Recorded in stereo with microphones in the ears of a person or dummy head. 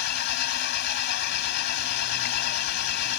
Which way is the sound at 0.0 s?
60° left (ahead or behind).